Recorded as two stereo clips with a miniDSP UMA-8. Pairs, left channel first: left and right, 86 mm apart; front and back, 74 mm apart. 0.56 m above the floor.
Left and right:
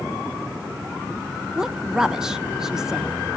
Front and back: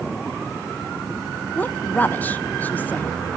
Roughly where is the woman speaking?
Ahead.